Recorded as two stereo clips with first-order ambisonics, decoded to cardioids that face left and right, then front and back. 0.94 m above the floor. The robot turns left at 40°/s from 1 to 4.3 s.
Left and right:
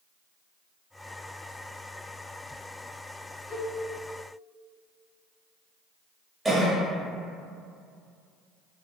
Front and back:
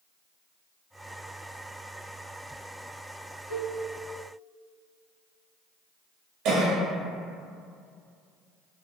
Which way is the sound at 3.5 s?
60° right.